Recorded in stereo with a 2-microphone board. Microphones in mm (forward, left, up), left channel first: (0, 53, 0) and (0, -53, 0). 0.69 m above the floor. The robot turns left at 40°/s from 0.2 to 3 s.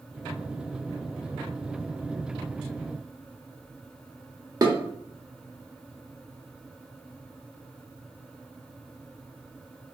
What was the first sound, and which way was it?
Dishes clattering, 35° right (ahead or behind).